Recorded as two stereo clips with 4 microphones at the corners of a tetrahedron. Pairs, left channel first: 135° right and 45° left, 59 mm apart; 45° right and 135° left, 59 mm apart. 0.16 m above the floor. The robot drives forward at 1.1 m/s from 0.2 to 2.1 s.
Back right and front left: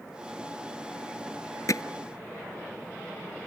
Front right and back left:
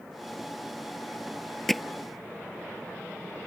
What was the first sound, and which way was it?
Hammering, 130° right.